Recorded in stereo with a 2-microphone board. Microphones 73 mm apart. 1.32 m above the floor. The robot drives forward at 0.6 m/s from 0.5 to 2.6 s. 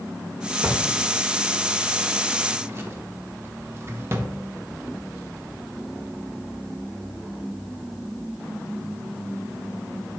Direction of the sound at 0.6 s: 20° right (ahead or behind).